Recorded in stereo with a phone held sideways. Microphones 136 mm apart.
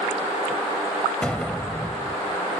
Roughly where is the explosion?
Centre.